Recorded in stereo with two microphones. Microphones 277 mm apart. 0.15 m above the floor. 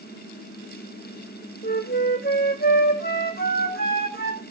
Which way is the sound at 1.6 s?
35° left (ahead or behind).